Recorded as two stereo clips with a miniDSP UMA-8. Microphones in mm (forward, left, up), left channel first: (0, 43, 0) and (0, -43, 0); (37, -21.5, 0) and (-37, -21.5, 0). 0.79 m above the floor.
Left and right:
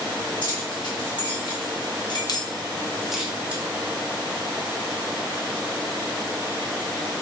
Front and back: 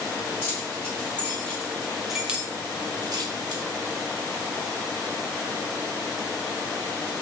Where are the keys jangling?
60° left, 1.6 m; by 3.6 s 160° right, 0.8 m.